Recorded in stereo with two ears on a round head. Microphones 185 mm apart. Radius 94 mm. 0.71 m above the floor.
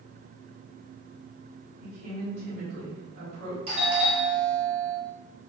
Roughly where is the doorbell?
Right.